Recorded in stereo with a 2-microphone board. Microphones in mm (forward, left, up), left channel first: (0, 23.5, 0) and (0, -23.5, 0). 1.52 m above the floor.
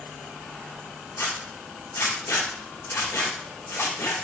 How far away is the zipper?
About 2.5 m.